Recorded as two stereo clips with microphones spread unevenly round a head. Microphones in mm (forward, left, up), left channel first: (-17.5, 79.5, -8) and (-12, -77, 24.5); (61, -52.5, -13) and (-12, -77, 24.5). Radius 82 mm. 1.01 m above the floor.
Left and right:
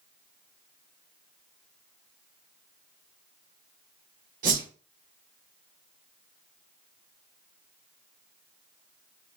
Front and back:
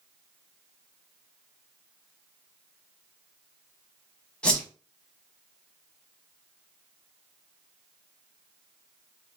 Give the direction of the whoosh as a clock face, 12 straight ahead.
3 o'clock.